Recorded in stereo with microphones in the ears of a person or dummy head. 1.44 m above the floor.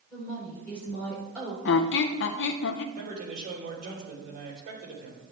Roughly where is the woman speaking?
Centre.